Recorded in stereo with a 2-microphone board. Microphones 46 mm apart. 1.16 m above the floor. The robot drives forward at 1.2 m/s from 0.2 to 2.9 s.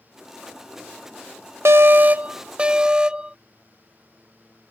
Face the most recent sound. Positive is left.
turn(degrees=-20)  # may be behind; listen again after turning